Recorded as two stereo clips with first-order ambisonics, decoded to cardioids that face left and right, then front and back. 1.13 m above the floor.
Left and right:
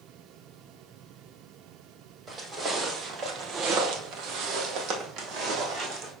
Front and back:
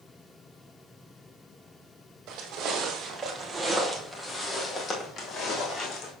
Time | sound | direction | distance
2.3 | footsteps | 160° right | 1.9 m